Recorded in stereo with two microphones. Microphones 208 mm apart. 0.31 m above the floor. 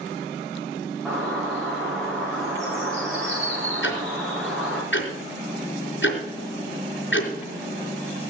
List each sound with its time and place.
1.1 s a bird: centre (ahead or behind), 8.5 m
3.8 s ticking: 65° left (ahead or behind), 4 m